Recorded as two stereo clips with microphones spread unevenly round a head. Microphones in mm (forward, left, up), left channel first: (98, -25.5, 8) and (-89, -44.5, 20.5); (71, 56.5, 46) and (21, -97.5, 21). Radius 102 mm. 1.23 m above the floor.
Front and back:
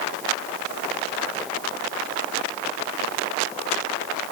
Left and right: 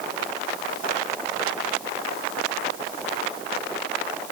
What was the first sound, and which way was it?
Only background noise.